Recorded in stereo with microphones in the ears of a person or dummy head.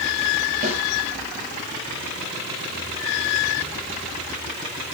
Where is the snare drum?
40° right (ahead or behind), 3.5 m.